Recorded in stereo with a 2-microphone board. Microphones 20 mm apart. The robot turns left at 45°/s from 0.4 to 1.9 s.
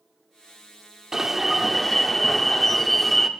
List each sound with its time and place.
1.1 s an alarm: 150° right, 0.6 m; by 3.3 s 175° left, 0.6 m